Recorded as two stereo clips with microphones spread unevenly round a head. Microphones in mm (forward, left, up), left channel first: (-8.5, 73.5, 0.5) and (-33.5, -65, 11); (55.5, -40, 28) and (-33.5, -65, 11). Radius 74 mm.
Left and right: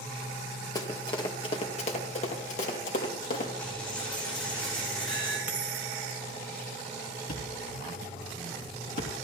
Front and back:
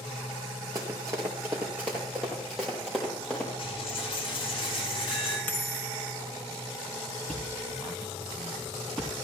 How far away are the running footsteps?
About 2 m.